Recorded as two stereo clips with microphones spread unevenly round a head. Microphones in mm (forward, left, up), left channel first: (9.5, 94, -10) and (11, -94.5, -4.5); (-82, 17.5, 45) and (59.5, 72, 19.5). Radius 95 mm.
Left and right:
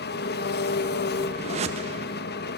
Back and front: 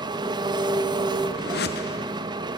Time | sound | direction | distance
0.0 | an engine running | 85° left | 0.9 m
1.4 | a whoosh | 145° right | 1.1 m